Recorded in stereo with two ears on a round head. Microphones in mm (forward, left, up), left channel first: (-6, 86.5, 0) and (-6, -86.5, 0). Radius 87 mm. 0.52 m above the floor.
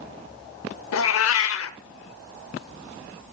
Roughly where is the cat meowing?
Left.